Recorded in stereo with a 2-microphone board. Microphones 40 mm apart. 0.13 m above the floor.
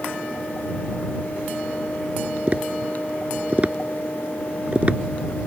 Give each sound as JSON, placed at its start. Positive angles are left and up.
{"t": 2.5, "sound": "tapping", "side_deg": -35}